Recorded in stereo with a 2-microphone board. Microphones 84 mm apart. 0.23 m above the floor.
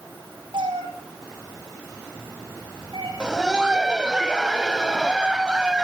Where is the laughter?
10° right (ahead or behind), 1.5 m.